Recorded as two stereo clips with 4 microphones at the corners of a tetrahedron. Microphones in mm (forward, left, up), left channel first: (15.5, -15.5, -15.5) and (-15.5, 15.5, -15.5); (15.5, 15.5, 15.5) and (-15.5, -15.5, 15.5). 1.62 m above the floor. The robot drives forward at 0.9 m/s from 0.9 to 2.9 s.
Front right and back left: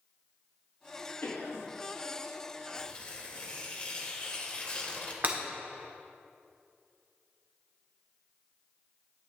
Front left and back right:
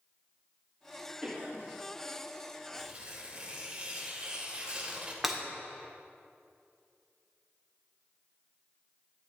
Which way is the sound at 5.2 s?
145° left.